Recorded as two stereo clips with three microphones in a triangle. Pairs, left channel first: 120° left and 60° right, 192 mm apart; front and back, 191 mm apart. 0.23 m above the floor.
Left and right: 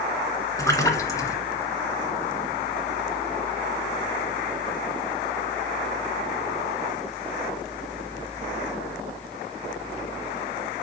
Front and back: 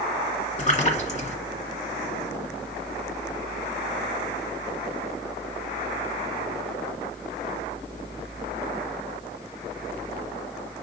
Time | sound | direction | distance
0.6 | a splash | 50° left | 1.8 m